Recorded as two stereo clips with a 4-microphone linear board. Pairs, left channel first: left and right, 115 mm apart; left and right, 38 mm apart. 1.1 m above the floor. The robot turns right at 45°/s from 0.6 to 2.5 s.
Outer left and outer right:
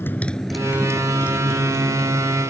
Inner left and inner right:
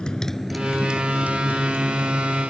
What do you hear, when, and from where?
0.0 s a motorcycle: 20° left (ahead or behind); by 2.5 s 70° right (ahead or behind)